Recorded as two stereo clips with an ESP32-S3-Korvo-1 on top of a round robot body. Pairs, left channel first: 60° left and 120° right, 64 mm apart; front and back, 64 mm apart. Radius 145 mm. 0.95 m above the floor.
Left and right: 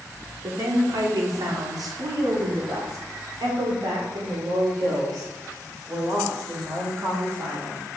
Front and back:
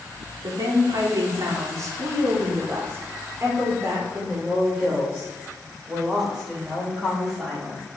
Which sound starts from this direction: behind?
A woman speaking, at 0.4 s.